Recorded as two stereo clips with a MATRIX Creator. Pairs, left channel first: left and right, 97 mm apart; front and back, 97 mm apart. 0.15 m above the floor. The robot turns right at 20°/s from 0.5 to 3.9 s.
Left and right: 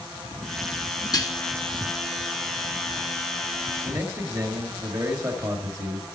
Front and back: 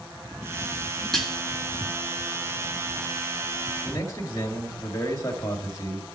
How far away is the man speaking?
About 2.5 m.